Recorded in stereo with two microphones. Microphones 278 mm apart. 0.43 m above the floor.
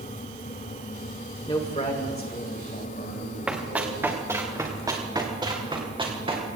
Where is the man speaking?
15° left (ahead or behind), 1.3 m; by 4.1 s 45° left (ahead or behind), 5 m.